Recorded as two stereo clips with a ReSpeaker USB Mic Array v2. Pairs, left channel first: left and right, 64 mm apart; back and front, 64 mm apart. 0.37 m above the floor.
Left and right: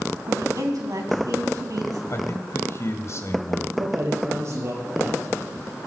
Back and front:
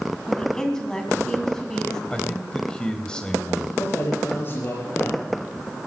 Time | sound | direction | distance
0.3 | a woman speaking | 100° right | 3 m
2.1 | a man speaking | 110° left | 2 m
3.8 | a man speaking | 130° right | 7 m